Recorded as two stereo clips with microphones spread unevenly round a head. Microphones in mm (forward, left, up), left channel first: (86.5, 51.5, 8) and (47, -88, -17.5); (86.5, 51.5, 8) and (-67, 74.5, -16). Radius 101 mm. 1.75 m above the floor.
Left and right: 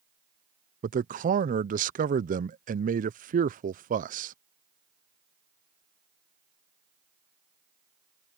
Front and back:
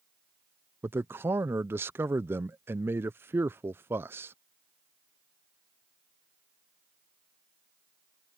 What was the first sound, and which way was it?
A man speaking, 105° right.